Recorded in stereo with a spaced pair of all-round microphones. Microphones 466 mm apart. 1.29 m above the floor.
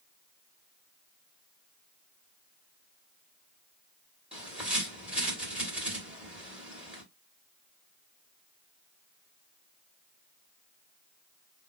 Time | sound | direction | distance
4.3 | a bird | centre (ahead or behind) | 1.6 m